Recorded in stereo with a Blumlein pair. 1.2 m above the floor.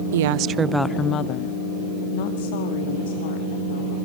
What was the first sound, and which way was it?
A woman speaking, 60° right.